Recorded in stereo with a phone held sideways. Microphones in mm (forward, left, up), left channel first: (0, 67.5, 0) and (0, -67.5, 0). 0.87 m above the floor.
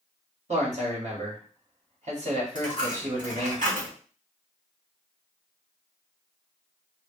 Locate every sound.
0.5 s a man speaking: 60° right (ahead or behind), 1.9 m
2.5 s a dropped coin: 85° right, 2 m